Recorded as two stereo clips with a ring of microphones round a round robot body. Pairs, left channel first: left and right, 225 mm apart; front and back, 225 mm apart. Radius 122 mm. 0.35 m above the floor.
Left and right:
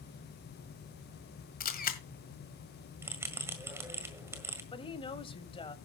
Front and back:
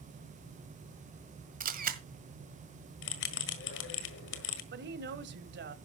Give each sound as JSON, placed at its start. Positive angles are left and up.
{"t": 1.6, "sound": "a camera shutter", "azimuth_deg": 135, "distance_m": 1.7}
{"t": 3.0, "sound": "a bell", "azimuth_deg": -10, "distance_m": 1.6}
{"t": 4.7, "sound": "a woman speaking", "azimuth_deg": 155, "distance_m": 1.6}